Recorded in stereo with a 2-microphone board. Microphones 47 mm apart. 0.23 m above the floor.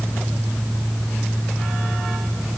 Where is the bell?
No bell in this recording.